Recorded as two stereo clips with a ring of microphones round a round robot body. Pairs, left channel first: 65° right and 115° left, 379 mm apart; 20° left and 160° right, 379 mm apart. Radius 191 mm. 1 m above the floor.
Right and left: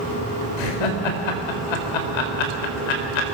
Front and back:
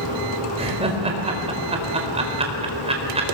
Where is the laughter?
80° right, 4.5 m.